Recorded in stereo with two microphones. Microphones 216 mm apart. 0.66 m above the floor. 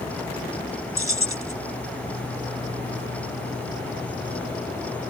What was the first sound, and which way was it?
Keys jangling, 85° left.